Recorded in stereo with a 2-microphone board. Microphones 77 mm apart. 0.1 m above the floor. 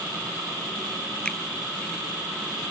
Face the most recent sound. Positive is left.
turn(degrees=10)  # may be behind; listen again after turning